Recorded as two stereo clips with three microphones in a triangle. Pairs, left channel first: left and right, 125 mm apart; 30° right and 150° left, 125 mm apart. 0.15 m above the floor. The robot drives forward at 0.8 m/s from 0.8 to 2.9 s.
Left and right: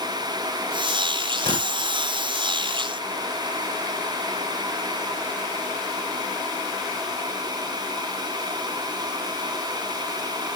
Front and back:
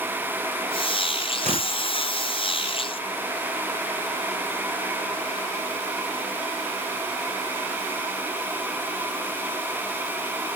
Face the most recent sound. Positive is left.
turn(degrees=155)